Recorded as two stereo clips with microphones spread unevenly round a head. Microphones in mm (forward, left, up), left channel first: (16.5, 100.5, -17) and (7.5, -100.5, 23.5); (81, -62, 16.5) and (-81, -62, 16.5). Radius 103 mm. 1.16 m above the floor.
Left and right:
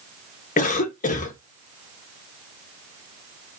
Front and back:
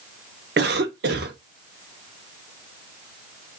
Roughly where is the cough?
Behind left.